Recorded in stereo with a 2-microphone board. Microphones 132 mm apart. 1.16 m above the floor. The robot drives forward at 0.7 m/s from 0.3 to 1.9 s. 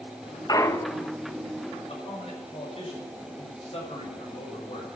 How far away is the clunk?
About 0.6 m.